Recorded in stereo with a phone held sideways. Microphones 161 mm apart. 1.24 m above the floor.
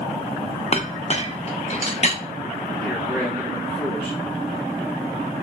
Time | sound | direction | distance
0.7 | a clink | 40° left (ahead or behind) | 0.5 m
2.8 | a man speaking | 5° left (ahead or behind) | 2 m